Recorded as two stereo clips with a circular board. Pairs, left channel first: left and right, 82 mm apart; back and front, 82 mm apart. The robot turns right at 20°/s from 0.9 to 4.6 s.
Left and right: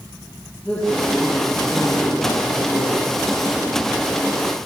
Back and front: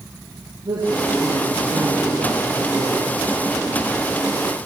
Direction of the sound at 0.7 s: 15° left.